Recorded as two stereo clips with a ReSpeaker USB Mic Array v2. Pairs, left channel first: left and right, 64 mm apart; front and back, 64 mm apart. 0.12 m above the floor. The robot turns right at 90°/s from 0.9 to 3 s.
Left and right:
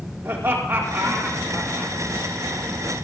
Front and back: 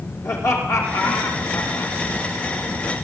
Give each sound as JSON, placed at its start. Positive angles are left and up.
{"t": 0.2, "sound": "laughter", "azimuth_deg": -35, "distance_m": 5.0}